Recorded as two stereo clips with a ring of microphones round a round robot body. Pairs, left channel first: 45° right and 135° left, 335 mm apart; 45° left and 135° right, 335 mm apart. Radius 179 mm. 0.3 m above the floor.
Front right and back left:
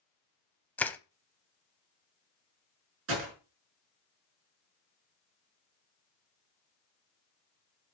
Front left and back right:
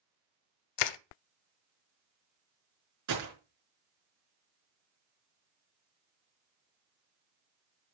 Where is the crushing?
40° left, 0.6 m.